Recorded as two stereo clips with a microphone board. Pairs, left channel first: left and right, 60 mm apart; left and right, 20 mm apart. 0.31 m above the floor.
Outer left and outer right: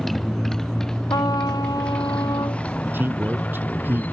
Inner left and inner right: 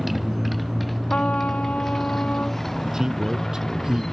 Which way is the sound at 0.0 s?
Centre (ahead or behind).